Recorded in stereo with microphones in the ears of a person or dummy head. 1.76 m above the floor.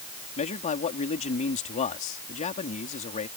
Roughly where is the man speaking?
Left.